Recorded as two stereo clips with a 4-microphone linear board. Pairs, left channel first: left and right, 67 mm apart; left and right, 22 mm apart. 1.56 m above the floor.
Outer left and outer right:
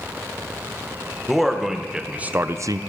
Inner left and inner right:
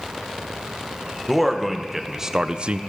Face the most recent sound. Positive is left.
turn(degrees=-65)  # may be behind; listen again after turning